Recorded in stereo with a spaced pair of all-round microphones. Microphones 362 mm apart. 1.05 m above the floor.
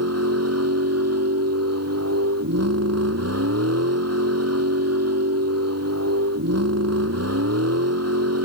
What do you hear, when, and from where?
0.0 s a vehicle: 40° right (ahead or behind)